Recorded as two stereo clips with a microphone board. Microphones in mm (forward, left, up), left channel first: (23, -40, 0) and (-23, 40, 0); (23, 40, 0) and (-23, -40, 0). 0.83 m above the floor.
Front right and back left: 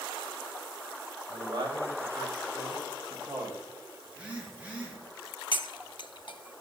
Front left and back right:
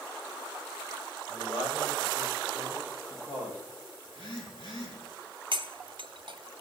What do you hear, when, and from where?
1.3 s a man speaking: 90° left, 4.5 m; by 3.6 s 60° left, 4.5 m
4.0 s a phone buzzing: 45° left, 6.5 m
5.5 s cutlery clinking: 90° right, 0.7 m